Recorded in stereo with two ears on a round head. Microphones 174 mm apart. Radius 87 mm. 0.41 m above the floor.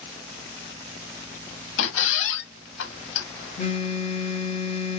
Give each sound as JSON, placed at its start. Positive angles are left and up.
{"t": 1.8, "sound": "a squeak", "side_deg": 70, "distance_m": 0.7}
{"t": 3.6, "sound": "a phone buzzing", "side_deg": 30, "distance_m": 0.7}